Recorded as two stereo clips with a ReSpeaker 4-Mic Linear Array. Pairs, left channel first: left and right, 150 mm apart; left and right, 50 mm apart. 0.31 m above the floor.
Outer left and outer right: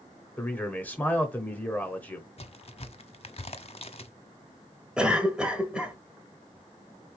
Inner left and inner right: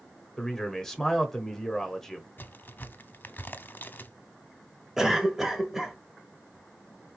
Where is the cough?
5° right (ahead or behind), 1.0 m.